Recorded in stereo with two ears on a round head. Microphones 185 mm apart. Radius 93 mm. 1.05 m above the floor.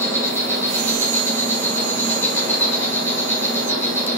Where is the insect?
10° left (ahead or behind), 1.7 m.